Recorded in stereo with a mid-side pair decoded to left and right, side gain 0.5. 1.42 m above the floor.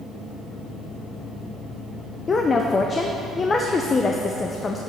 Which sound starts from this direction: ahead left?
A woman speaking, at 2.3 s.